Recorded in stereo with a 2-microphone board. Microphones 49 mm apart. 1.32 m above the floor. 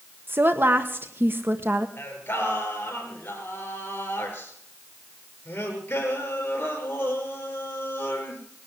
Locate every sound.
0.3 s a woman speaking: 45° right (ahead or behind), 1.2 m
2.0 s singing: 40° left (ahead or behind), 5 m